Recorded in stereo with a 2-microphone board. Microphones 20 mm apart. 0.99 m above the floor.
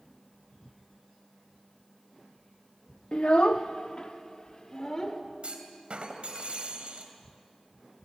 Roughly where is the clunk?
Right.